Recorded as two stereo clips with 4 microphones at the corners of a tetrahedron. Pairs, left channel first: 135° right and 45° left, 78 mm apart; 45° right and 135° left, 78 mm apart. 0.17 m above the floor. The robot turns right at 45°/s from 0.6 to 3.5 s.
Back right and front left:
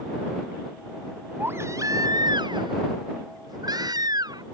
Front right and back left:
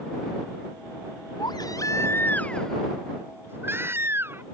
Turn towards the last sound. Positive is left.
turn(degrees=75)